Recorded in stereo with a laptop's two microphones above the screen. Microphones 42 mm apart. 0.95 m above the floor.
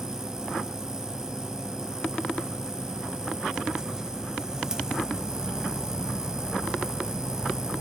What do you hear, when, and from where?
0.0 s a machine running: 15° right (ahead or behind), 0.8 m